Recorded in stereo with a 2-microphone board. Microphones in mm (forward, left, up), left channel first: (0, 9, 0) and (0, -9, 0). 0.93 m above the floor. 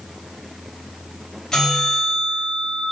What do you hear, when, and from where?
1.5 s a bell: 30° left (ahead or behind), 3.5 m